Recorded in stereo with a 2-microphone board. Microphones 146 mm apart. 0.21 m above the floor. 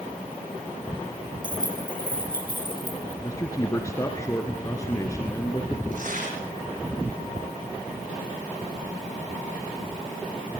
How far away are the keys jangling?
About 6.5 m.